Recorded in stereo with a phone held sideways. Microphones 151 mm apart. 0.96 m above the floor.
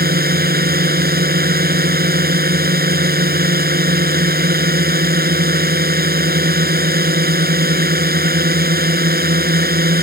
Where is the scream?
No scream in this recording.